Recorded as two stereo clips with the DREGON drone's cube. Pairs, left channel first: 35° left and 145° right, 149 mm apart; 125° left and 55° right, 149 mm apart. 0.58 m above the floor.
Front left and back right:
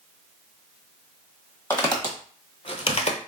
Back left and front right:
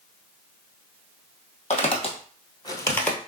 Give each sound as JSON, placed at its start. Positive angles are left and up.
{"t": 1.7, "sound": "footsteps", "azimuth_deg": 105, "distance_m": 1.3}